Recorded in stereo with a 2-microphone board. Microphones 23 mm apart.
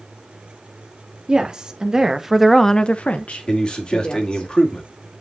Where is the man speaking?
35° left (ahead or behind), 2.5 m.